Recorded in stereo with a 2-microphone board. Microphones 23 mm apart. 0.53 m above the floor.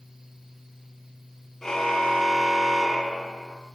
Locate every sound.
1.6 s a car horn: 15° left (ahead or behind), 7.5 m